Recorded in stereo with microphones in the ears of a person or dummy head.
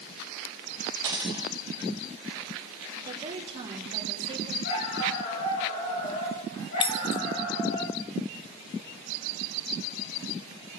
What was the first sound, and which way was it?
A dropped coin, 20° right (ahead or behind).